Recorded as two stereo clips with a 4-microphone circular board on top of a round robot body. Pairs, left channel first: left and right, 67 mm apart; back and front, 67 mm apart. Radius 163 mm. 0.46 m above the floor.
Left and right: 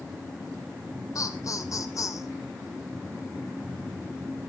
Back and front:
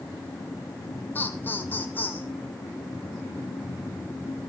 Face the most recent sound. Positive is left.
turn(degrees=120)